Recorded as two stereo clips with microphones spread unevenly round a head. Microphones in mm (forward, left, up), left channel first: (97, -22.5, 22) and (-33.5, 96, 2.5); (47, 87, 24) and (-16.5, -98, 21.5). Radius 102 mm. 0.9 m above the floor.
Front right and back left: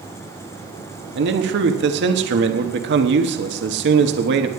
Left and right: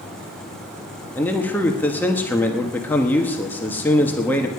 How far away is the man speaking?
About 1.1 m.